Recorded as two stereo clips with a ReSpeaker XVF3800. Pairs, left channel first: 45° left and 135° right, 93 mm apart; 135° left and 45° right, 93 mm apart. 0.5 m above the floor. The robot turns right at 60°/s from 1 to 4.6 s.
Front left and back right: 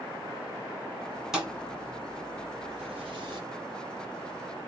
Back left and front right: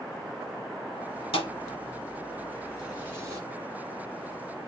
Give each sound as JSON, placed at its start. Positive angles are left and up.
{"t": 1.3, "sound": "a thud", "azimuth_deg": 140, "distance_m": 1.5}